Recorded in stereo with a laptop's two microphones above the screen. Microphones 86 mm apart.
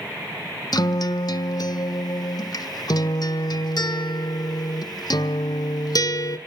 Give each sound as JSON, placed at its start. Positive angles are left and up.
{"t": 0.7, "sound": "a guitar", "side_deg": 55, "distance_m": 1.1}